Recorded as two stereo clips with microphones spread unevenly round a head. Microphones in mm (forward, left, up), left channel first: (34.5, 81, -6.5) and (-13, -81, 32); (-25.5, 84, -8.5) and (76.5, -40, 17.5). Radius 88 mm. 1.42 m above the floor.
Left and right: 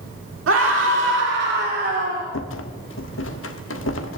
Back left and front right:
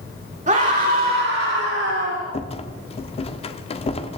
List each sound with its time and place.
0.5 s a scream: 105° right, 3.5 m; by 2.2 s 70° right, 4 m
2.3 s a rattle: 75° left, 1.3 m